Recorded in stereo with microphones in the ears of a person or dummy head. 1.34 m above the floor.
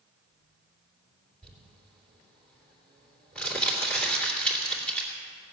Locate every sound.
1.4 s crumpling: 5° left (ahead or behind), 2.5 m